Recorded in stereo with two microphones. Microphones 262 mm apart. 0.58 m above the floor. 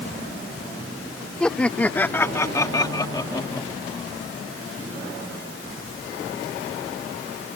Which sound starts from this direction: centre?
Laughter, at 1.4 s.